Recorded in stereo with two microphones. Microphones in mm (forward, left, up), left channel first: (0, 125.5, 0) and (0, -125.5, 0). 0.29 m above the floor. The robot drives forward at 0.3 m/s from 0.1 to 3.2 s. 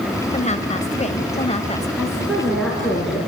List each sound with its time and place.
0.3 s a woman speaking: 30° left (ahead or behind), 1.4 m; by 1.9 s 25° left (ahead or behind), 1.5 m
2.0 s a woman speaking: centre (ahead or behind), 3.5 m